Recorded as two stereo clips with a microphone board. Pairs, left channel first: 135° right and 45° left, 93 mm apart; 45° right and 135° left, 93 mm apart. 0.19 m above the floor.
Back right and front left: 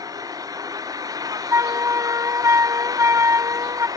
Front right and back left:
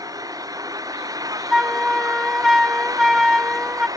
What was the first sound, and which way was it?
An engine running, 90° left.